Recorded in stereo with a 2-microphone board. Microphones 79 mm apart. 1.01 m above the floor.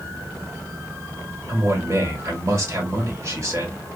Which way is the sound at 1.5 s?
40° right (ahead or behind).